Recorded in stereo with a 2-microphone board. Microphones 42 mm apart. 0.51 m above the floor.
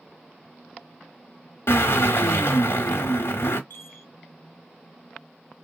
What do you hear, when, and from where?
1.7 s a drill: 70° left (ahead or behind), 1.1 m
3.7 s a chime: 55° left (ahead or behind), 0.6 m